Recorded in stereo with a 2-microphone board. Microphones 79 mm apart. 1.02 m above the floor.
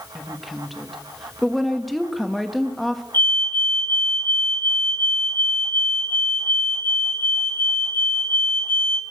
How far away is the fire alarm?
About 3 m.